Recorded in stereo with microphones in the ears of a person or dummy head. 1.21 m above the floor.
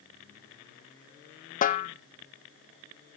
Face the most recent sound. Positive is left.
turn(degrees=35)  # may be behind; listen again after turning